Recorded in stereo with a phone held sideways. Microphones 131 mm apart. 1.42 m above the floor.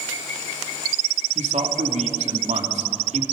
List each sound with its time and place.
1.4 s a man speaking: 60° right (ahead or behind), 2.5 m